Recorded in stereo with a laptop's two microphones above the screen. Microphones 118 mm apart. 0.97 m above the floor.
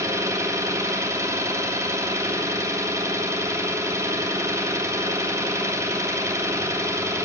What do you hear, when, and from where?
0.0 s an engine running: 25° right (ahead or behind), 2 m